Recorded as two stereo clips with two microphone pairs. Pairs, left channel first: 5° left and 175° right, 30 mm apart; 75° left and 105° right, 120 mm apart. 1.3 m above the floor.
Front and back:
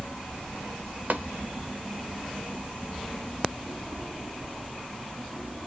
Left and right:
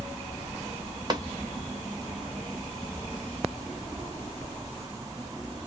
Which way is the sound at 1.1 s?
165° right.